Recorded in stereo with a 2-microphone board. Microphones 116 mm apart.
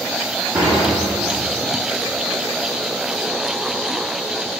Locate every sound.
0.6 s dishes clattering: 40° right (ahead or behind), 5.5 m